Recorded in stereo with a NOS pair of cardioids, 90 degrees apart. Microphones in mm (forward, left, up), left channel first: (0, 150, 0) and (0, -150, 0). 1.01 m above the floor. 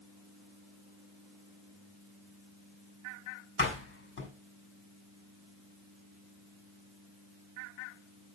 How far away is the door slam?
About 6 m.